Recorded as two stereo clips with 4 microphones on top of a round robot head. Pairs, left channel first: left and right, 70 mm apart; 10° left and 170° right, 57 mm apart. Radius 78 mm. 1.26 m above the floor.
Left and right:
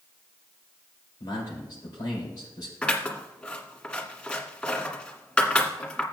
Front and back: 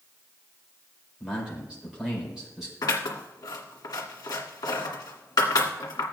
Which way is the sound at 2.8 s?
15° left.